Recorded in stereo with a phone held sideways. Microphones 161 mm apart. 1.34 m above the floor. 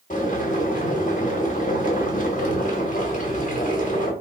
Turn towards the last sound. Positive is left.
turn(degrees=55)  # may be behind; listen again after turning